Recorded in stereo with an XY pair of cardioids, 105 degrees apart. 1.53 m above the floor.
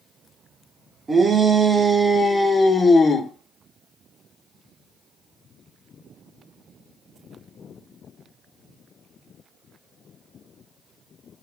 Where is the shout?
30° right, 1.3 m; by 3.3 s 45° left, 1.0 m.